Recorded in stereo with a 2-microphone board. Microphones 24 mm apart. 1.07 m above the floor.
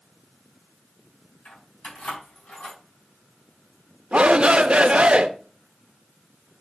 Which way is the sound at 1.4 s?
80° left.